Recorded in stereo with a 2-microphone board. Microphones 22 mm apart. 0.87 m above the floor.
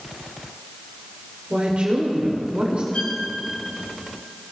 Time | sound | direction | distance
1.5 | a woman speaking | 55° right (ahead or behind) | 2.5 m
2.9 | a violin | 80° left | 3.5 m